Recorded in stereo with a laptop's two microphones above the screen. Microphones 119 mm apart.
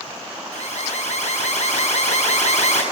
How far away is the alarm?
About 8.5 m.